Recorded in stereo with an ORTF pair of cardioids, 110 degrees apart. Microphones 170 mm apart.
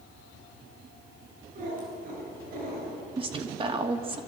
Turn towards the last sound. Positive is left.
turn(degrees=-30)